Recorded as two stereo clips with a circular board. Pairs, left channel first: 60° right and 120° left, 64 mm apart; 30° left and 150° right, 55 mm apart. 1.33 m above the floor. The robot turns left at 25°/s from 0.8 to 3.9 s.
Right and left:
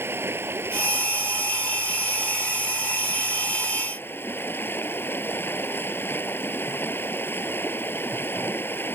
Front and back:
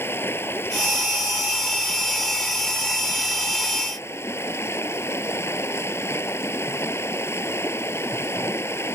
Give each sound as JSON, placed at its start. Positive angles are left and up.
{"t": 0.0, "sound": "running water", "azimuth_deg": 70}